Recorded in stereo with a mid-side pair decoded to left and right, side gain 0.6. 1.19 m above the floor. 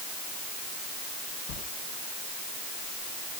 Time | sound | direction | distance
1.5 | a sliding door | 65° left | 6 m